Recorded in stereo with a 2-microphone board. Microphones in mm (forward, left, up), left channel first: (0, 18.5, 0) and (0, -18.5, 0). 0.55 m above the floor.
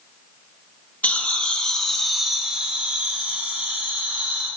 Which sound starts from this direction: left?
Laughter, at 1.0 s.